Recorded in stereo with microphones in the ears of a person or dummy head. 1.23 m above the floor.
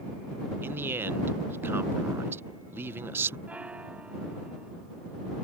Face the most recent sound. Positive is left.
turn(degrees=-5)  # may be behind; listen again after turning